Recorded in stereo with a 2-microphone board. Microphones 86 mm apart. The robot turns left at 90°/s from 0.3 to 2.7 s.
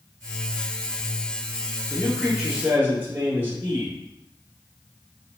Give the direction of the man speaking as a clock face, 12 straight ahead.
11 o'clock.